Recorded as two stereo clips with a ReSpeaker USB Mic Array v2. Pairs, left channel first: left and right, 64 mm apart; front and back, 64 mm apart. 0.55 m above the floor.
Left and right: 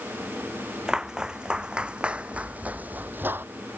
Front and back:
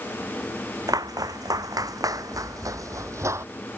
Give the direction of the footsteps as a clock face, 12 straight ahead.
6 o'clock.